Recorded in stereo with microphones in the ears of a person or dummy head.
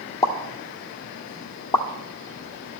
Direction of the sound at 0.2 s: 20° left (ahead or behind).